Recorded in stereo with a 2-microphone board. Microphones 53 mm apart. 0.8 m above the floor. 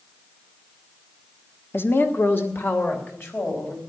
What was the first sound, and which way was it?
A woman speaking, 45° left (ahead or behind).